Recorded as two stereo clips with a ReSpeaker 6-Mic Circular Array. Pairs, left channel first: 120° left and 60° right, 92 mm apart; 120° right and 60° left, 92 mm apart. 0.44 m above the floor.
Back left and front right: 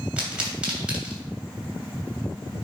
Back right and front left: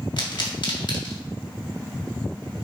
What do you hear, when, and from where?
0.2 s a pop: 135° right, 2.5 m